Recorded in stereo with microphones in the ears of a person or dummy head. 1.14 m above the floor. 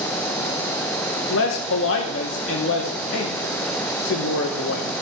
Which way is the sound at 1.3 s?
65° left (ahead or behind).